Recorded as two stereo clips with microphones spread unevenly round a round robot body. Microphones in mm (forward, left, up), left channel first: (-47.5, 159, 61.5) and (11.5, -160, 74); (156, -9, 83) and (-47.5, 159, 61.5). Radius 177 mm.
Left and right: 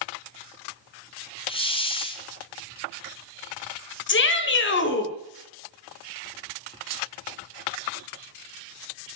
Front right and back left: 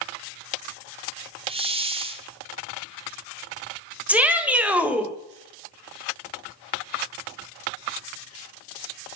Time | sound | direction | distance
1.5 | a hiss | 145° left | 1.4 m
4.1 | a shout | 60° left | 1.8 m